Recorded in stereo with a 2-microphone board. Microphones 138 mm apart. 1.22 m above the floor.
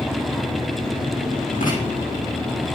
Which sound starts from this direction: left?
Writing, at 1.6 s.